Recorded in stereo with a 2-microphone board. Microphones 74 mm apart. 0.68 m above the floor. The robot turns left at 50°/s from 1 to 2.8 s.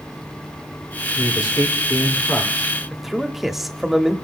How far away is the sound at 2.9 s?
About 1.1 m.